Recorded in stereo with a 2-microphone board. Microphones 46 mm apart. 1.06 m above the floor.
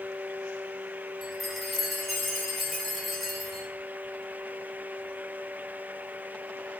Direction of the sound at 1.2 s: Centre (ahead or behind).